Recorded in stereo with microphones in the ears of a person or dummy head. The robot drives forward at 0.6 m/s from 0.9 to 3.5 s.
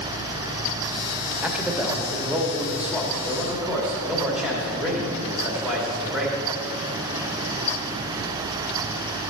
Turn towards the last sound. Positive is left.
turn(degrees=0)  # may be behind; listen again after turning